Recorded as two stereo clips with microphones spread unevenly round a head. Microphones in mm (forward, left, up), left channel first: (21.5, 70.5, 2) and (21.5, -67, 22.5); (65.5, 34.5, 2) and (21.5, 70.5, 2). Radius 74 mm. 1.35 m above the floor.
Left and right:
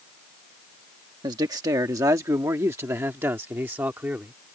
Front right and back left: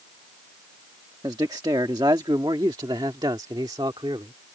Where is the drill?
No drill in this recording.